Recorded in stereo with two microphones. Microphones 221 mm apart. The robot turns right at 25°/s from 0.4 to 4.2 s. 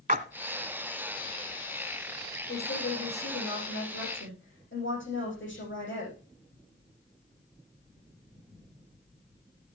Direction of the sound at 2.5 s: 75° left.